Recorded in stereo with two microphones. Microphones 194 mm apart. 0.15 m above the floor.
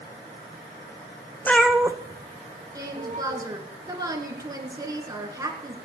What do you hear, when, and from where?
1.4 s a cat meowing: 10° left (ahead or behind), 0.7 m; by 3.4 s 40° right (ahead or behind), 2 m
2.8 s a woman speaking: 20° right (ahead or behind), 1.7 m